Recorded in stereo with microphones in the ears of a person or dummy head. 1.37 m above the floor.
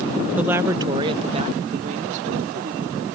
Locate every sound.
0.4 s a woman speaking: 10° right (ahead or behind); by 3.0 s 55° right (ahead or behind)